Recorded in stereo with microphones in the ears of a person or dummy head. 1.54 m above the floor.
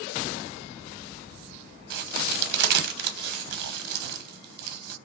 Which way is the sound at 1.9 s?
60° right (ahead or behind).